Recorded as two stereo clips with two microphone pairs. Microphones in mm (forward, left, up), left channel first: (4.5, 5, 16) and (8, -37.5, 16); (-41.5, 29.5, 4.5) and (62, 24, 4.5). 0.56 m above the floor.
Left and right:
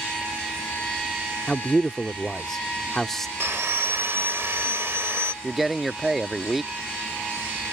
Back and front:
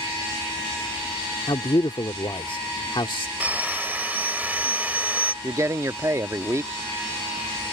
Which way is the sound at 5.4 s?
10° right.